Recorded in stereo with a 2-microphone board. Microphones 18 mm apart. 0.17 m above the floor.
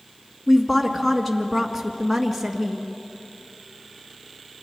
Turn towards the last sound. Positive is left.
turn(degrees=0)  # may be behind; listen again after turning